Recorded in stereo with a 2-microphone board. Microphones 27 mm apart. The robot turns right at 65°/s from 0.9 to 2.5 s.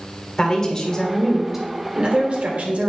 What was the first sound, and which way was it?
A woman speaking, 145° left.